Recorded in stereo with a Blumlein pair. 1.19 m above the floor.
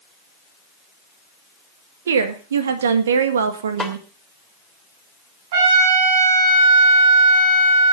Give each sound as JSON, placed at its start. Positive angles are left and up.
{"t": 2.1, "sound": "a woman speaking", "azimuth_deg": -65, "distance_m": 2.0}
{"t": 3.8, "sound": "a snare drum", "azimuth_deg": 0, "distance_m": 2.0}
{"t": 5.5, "sound": "a trumpet", "azimuth_deg": -55, "distance_m": 6.5}